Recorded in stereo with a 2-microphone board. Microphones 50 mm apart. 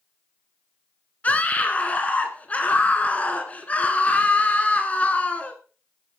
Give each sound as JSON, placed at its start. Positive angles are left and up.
{"t": 1.2, "sound": "a scream", "side_deg": 30, "distance_m": 1.6}